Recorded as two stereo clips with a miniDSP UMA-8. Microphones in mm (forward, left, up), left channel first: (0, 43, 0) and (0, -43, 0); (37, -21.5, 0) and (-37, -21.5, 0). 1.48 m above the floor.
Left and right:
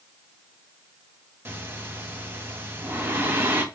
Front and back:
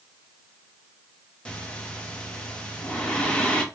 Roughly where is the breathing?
Ahead right.